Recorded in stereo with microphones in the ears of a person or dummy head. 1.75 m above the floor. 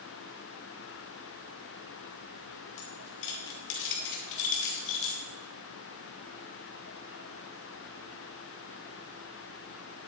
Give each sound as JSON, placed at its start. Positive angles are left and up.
{"t": 2.8, "sound": "keys jangling", "side_deg": 60, "distance_m": 1.3}